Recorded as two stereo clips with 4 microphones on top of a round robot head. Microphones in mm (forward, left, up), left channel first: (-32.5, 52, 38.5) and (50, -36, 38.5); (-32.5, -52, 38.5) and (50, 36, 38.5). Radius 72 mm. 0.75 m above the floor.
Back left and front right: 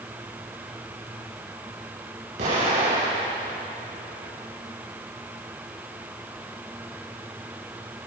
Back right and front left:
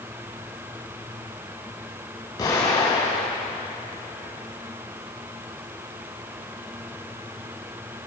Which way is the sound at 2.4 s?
80° right.